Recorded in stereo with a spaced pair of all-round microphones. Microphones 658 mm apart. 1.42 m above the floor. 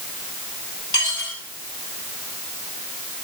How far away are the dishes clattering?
About 9.5 m.